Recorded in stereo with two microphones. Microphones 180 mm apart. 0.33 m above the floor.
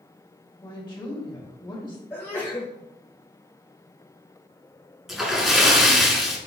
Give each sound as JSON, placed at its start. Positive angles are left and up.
{"t": 0.6, "sound": "a woman speaking", "side_deg": 25, "distance_m": 1.5}
{"t": 2.1, "sound": "a sneeze", "side_deg": 15, "distance_m": 1.0}
{"t": 5.1, "sound": "a splash", "side_deg": 0, "distance_m": 1.1}